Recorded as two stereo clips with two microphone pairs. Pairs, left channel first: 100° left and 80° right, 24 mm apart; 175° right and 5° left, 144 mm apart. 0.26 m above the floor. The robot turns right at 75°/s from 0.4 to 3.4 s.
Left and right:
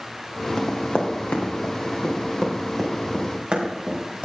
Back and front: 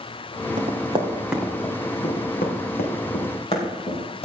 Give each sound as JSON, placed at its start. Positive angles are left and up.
{"t": 0.6, "sound": "running footsteps", "azimuth_deg": 35, "distance_m": 3.0}